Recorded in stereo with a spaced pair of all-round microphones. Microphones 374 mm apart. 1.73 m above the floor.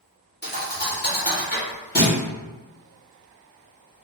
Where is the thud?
25° left (ahead or behind), 1.1 m.